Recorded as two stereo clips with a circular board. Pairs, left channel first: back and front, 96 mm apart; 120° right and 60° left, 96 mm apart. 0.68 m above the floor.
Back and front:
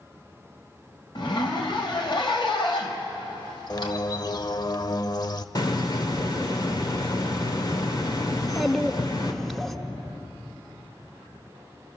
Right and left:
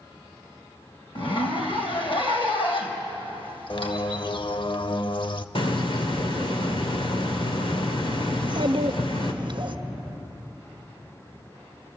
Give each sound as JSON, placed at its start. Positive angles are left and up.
{"t": 1.1, "sound": "a zipper", "azimuth_deg": -140, "distance_m": 3.0}
{"t": 3.7, "sound": "a bird", "azimuth_deg": -140, "distance_m": 0.6}
{"t": 5.5, "sound": "a hiss", "azimuth_deg": -135, "distance_m": 2.0}
{"t": 8.3, "sound": "a child speaking", "azimuth_deg": 95, "distance_m": 1.0}